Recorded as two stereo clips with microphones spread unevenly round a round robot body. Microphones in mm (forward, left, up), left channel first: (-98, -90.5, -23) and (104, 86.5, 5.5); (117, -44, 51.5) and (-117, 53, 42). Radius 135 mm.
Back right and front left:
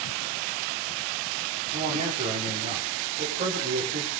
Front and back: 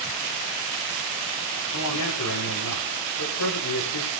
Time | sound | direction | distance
1.7 | a man speaking | 20° right | 9.5 m